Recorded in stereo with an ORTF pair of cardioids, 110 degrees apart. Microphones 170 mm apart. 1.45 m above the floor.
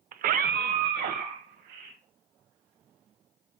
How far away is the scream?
About 0.6 m.